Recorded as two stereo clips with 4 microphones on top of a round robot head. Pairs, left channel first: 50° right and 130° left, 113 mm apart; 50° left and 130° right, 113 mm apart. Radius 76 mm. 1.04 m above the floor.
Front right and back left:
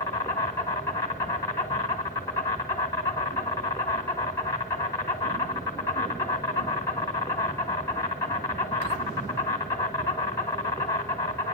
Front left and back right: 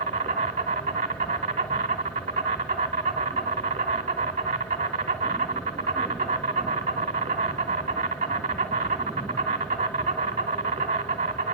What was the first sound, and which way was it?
An insect, 110° right.